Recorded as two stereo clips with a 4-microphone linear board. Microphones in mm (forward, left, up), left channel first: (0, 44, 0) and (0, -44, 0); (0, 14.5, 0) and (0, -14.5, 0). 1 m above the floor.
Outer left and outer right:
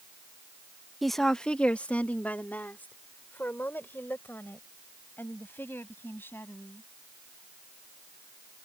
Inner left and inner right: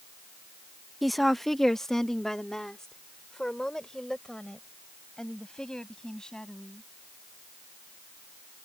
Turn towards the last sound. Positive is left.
turn(degrees=25)  # may be behind; listen again after turning